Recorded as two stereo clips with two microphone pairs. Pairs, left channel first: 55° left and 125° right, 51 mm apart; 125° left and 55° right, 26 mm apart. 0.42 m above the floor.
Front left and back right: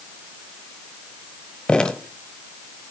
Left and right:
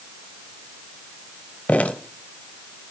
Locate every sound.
1.7 s dripping: 130° left, 0.9 m